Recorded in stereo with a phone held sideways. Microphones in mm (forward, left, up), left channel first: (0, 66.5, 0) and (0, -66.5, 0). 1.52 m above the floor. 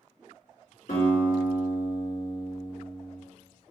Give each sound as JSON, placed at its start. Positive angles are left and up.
{"t": 0.9, "sound": "a guitar", "side_deg": 70, "distance_m": 1.8}